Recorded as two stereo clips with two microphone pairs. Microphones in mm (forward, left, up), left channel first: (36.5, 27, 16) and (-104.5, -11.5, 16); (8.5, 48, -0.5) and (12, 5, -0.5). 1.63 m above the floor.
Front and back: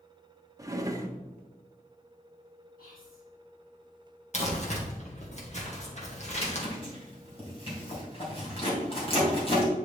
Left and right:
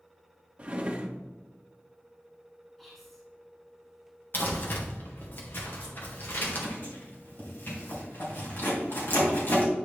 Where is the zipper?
60° left, 3 m.